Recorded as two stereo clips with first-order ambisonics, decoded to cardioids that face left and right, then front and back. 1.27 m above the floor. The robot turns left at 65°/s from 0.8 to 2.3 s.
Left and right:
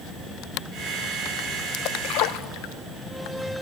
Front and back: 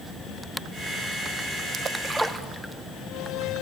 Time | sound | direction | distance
1.7 | a splash | 125° left | 1.1 m